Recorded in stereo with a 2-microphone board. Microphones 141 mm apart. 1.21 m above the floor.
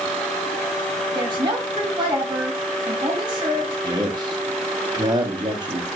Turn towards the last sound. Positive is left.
turn(degrees=-30)  # may be behind; listen again after turning